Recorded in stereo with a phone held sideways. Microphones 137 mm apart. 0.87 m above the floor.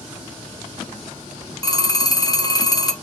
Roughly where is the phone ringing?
Left.